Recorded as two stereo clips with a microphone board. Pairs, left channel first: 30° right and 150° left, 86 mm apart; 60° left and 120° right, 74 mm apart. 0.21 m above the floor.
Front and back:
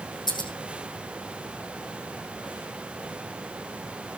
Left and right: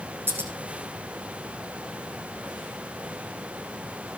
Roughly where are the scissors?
Ahead right.